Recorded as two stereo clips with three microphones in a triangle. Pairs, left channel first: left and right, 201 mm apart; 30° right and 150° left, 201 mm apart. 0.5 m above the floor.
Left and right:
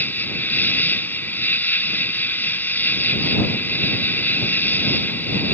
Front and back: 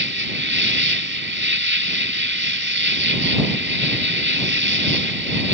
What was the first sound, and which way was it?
An insect, 170° left.